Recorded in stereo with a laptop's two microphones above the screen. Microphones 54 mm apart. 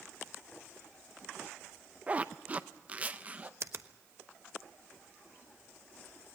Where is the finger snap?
55° right (ahead or behind), 1.1 m.